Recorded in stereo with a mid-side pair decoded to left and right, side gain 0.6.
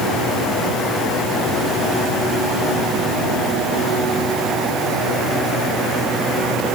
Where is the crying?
I don't hear crying.